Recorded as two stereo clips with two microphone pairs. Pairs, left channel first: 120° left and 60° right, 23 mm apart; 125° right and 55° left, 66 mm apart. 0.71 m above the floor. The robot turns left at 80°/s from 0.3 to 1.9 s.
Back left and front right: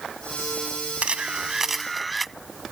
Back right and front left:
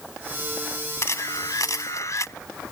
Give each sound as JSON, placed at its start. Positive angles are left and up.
{"t": 1.0, "sound": "a camera shutter", "azimuth_deg": -80}